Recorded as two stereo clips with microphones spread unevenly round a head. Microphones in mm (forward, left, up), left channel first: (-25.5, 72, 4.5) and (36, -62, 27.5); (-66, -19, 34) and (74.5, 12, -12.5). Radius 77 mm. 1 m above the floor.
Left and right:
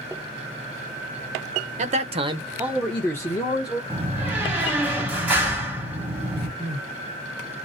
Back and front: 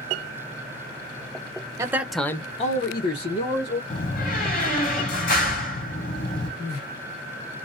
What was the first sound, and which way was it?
A man speaking, 30° right.